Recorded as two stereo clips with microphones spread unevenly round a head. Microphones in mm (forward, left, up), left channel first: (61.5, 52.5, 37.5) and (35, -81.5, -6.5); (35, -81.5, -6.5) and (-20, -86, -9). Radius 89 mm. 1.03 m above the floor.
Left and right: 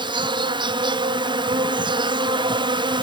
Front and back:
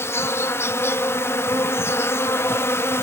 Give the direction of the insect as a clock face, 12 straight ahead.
1 o'clock.